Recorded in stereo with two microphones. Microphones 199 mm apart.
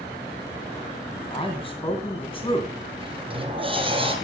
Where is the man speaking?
25° left (ahead or behind), 2.5 m.